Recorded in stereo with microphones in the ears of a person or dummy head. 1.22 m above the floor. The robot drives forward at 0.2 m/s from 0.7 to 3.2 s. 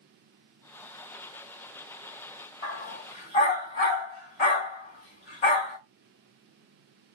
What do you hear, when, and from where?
2.6 s a dog barking: 35° left (ahead or behind), 1.3 m; by 5.8 s 30° left (ahead or behind), 1.4 m